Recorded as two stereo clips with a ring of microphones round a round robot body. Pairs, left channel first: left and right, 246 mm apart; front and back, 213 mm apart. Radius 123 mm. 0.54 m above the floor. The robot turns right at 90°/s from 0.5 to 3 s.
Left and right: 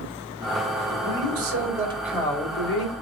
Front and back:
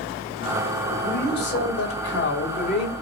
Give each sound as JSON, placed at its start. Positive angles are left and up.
{"t": 0.9, "sound": "a man speaking", "azimuth_deg": -115, "distance_m": 3.0}